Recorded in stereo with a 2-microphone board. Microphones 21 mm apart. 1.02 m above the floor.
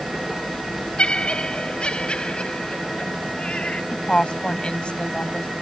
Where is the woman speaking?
60° left (ahead or behind).